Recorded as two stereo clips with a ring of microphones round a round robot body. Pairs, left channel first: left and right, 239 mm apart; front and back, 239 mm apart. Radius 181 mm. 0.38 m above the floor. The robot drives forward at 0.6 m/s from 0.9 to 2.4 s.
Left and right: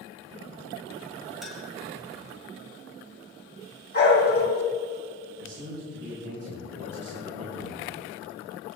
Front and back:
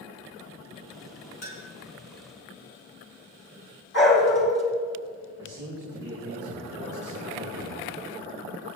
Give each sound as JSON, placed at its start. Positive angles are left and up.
{"t": 1.4, "sound": "a clink", "azimuth_deg": 0, "distance_m": 3.5}
{"t": 3.9, "sound": "a dog barking", "azimuth_deg": 40, "distance_m": 4.0}
{"t": 5.4, "sound": "a man speaking", "azimuth_deg": -105, "distance_m": 4.5}